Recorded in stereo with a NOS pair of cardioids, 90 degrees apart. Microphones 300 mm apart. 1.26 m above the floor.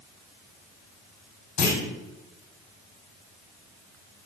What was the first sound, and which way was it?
A clunk, 65° left.